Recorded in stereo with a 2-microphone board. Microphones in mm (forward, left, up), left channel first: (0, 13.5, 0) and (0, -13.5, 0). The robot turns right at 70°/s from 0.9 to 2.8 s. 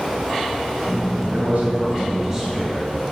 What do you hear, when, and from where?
1.3 s a man speaking: 90° right, 1.9 m; by 2.9 s 15° left, 1.9 m